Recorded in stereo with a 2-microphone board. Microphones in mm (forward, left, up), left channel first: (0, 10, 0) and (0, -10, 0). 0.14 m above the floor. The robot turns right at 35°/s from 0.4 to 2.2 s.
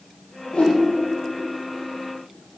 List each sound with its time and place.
0.5 s a whoosh: 65° left (ahead or behind), 5 m; by 0.8 s 70° left (ahead or behind), 5 m